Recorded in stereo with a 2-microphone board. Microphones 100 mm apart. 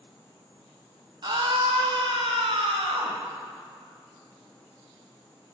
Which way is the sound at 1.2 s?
45° right (ahead or behind).